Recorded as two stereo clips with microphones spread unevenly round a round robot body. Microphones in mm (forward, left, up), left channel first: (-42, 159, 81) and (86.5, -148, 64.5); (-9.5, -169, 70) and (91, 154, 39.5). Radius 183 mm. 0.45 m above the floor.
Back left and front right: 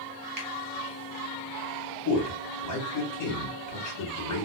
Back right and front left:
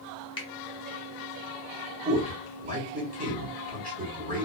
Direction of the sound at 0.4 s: 35° right.